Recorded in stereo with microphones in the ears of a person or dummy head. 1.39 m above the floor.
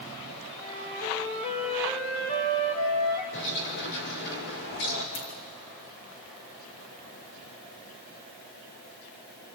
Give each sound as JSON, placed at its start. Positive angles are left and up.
{"t": 0.6, "sound": "a flute", "side_deg": 30, "distance_m": 2.5}
{"t": 3.3, "sound": "a bird", "side_deg": 55, "distance_m": 2.5}
{"t": 5.2, "sound": "a dropped coin", "side_deg": 30, "distance_m": 3.0}